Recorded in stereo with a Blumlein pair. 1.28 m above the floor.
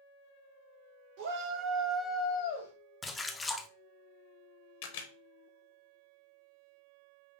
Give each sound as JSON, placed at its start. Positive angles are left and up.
{"t": 1.2, "sound": "a shout", "azimuth_deg": -50, "distance_m": 1.6}
{"t": 3.0, "sound": "a splash", "azimuth_deg": 10, "distance_m": 0.5}
{"t": 4.8, "sound": "a camera shutter", "azimuth_deg": 50, "distance_m": 0.8}